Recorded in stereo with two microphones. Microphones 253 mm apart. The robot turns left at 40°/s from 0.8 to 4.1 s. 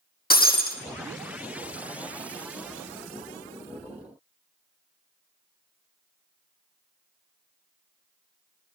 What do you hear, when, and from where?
0.3 s breaking glass: 35° left (ahead or behind), 1.7 m